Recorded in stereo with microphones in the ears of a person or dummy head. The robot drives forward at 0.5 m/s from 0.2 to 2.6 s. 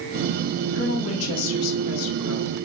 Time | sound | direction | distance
0.7 | a woman speaking | 70° left (ahead or behind) | 3 m